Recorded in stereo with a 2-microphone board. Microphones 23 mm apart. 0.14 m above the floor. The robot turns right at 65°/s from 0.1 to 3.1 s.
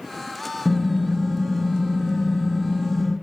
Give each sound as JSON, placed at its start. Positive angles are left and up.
{"t": 0.7, "sound": "typing on a keyboard", "azimuth_deg": 180, "distance_m": 1.1}